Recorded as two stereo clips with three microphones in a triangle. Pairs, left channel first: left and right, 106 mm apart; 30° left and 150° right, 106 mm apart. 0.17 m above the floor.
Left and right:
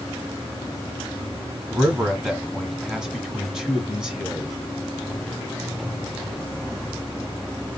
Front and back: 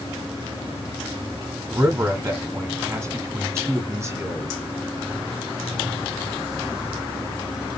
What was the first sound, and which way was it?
A man speaking, 170° right.